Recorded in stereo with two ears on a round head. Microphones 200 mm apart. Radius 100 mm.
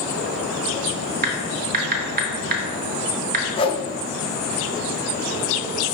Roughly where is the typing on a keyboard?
Right.